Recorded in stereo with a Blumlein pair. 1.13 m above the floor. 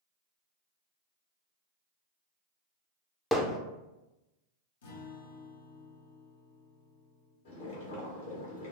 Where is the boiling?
55° left, 1.2 m.